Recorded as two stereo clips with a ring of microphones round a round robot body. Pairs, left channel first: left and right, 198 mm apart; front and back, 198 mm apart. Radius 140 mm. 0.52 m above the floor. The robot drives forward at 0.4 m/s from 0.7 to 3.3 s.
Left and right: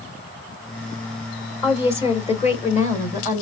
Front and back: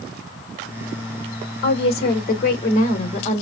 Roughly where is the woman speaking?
Ahead left.